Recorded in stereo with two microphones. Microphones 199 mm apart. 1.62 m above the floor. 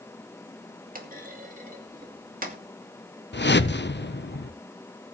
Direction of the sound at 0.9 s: 45° right (ahead or behind).